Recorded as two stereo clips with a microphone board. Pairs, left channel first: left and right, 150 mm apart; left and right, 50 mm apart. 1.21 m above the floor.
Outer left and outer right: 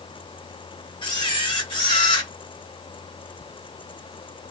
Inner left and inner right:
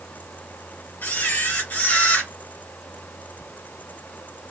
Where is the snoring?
No snoring in this recording.